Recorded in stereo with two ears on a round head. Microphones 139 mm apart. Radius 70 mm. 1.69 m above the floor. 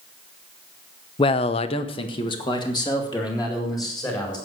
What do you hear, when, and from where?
1.2 s a man speaking: 30° left (ahead or behind), 0.7 m; by 4.4 s 25° left (ahead or behind), 4.5 m